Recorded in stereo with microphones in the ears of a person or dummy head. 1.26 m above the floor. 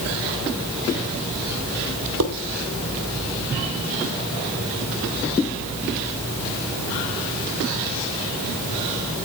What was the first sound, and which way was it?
Dishes clattering, 80° right.